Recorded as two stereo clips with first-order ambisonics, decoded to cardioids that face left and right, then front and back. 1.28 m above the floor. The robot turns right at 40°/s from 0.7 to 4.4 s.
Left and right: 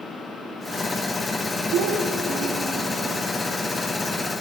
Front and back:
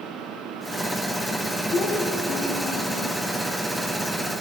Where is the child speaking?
60° right, 1.5 m; by 3.2 s straight ahead, 1.5 m.